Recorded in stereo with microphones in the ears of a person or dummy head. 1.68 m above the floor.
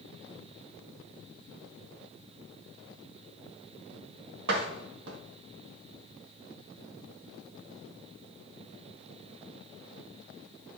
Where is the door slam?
75° right (ahead or behind), 1.8 m.